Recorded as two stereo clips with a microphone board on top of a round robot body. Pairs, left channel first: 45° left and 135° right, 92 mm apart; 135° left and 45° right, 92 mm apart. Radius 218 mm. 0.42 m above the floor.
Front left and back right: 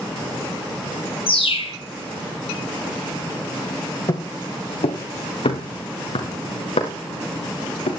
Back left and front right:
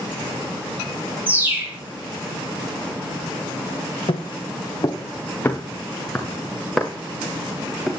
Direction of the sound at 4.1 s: 95° left.